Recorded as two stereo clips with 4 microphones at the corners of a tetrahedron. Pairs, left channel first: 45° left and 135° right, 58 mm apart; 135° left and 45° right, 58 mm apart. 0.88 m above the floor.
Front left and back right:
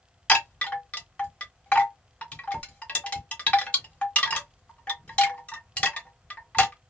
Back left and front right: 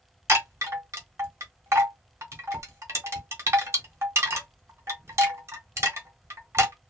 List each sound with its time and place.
0.3 s a chime: 20° right, 1.0 m